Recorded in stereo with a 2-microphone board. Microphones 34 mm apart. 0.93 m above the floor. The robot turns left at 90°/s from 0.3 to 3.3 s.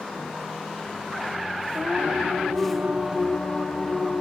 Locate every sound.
1.7 s singing: 55° right, 2 m; by 4.2 s 165° left, 2 m